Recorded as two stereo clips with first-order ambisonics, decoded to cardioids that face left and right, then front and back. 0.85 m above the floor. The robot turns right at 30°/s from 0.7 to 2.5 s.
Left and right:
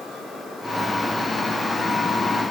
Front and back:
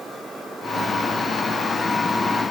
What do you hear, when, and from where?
Only background noise.